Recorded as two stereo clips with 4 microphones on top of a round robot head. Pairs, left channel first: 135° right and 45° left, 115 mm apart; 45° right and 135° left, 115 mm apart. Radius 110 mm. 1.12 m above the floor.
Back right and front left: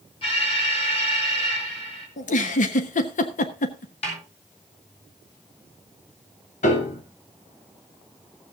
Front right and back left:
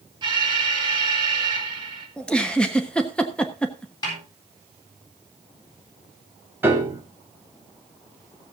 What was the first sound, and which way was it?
An alarm, 175° right.